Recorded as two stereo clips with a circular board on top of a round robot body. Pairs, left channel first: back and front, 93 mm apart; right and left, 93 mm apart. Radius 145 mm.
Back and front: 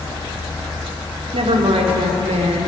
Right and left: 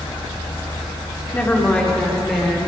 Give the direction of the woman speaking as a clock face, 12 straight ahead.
1 o'clock.